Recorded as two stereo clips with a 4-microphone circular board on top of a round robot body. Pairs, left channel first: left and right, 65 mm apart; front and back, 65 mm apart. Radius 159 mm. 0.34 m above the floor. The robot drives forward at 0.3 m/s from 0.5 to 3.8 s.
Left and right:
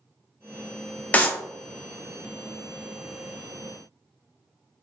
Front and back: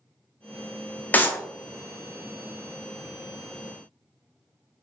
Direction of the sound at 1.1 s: 40° left.